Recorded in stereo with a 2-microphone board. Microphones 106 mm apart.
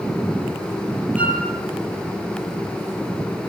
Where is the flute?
15° right (ahead or behind), 9.5 m.